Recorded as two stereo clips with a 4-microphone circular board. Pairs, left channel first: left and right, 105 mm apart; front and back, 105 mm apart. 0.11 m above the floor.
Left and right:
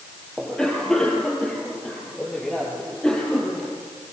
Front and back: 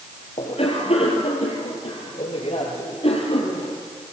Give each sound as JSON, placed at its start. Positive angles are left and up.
{"t": 0.4, "sound": "a cough", "azimuth_deg": 5, "distance_m": 3.0}